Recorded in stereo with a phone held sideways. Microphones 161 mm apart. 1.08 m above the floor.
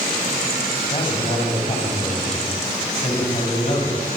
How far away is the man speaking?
About 6.5 m.